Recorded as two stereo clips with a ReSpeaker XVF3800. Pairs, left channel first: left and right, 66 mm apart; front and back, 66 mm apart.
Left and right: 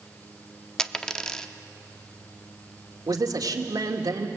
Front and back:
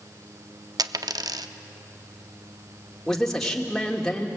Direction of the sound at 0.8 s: 170° left.